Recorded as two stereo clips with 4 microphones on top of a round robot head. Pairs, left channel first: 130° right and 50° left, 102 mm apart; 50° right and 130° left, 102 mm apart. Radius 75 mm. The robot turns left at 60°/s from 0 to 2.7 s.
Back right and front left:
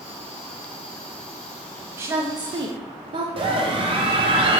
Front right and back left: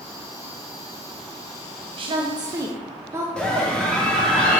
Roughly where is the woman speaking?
Behind left.